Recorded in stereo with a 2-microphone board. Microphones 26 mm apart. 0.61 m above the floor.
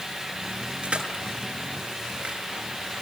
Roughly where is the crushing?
Right.